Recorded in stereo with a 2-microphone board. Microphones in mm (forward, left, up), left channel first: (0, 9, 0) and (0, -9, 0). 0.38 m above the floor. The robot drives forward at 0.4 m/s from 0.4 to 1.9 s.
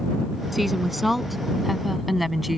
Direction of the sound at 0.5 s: Centre (ahead or behind).